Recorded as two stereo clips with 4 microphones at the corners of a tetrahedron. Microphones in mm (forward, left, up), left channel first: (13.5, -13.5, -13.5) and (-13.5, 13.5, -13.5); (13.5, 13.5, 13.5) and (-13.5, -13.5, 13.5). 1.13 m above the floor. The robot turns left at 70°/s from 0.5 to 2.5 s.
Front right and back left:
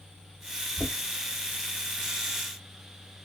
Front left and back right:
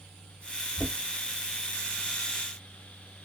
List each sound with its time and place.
0.8 s knocking: 120° right, 2 m; by 0.9 s 130° right, 2 m